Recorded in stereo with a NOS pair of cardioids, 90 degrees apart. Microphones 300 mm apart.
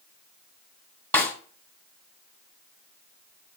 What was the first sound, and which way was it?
A snare drum, 5° left.